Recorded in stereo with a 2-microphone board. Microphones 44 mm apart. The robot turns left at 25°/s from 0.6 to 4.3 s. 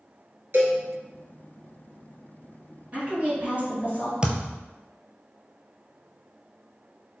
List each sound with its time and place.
0.5 s a cowbell: 60° right (ahead or behind), 1.0 m; by 0.8 s 65° right (ahead or behind), 1.0 m
2.9 s a woman speaking: 40° right (ahead or behind), 1.9 m; by 4.1 s 45° right (ahead or behind), 1.9 m
4.2 s a thud: 20° right (ahead or behind), 0.5 m